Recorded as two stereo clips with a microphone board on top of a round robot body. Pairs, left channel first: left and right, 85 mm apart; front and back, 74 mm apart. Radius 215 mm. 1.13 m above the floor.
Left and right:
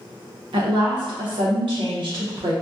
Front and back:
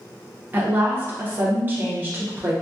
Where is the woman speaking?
115° right, 0.7 m.